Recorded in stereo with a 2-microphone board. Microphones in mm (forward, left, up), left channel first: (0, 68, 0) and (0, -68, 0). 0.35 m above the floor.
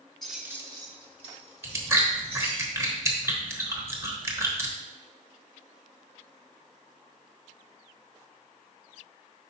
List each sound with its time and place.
0.2 s keys jangling: 5° left (ahead or behind), 0.9 m; by 2.6 s 45° right (ahead or behind), 3 m
1.6 s chewing: 20° right (ahead or behind), 1.0 m